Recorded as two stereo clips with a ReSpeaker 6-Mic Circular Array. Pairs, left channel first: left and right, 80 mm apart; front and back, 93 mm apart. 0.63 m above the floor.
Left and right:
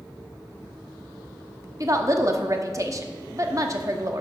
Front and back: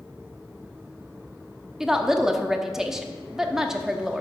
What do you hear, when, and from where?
1.8 s a woman speaking: 100° right, 1.0 m